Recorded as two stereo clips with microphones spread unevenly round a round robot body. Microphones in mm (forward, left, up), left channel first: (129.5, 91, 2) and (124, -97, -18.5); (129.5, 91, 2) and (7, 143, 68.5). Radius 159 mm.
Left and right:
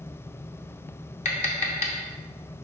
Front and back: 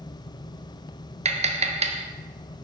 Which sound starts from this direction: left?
Tapping, at 1.2 s.